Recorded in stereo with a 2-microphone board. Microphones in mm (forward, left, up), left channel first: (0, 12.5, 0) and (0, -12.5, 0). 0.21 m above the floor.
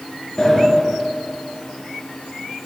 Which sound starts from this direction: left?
A sliding door, at 0.4 s.